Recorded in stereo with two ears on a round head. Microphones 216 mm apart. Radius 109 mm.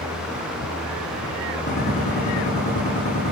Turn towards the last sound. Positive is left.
turn(degrees=30)  # may be behind; listen again after turning